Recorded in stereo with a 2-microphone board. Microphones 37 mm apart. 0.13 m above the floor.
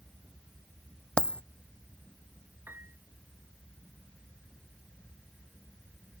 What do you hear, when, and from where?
1.2 s a dropped coin: 30° left (ahead or behind)
2.7 s a piano: 70° right (ahead or behind)